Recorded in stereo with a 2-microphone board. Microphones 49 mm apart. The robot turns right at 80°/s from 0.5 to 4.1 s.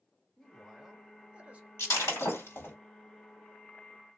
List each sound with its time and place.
0.4 s a man speaking: 10° left (ahead or behind), 0.8 m; by 1.7 s 25° right (ahead or behind), 0.8 m
1.8 s breaking glass: 60° left (ahead or behind), 1.4 m; by 2.8 s 40° left (ahead or behind), 1.4 m